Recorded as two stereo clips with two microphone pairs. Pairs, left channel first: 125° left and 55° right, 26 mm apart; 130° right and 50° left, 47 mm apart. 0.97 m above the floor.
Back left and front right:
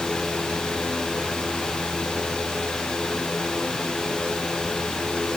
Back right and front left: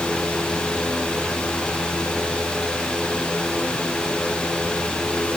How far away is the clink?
I don't hear a clink.